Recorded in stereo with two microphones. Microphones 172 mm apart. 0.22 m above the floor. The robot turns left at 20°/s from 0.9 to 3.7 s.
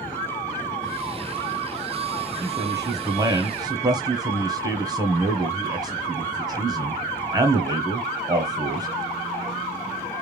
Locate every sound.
2.4 s a man speaking: 20° right (ahead or behind), 1.1 m; by 8.9 s 25° right (ahead or behind), 1.1 m